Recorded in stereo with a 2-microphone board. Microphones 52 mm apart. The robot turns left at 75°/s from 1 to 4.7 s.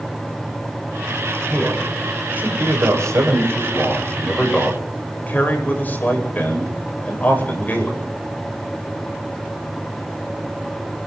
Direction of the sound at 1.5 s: 30° left.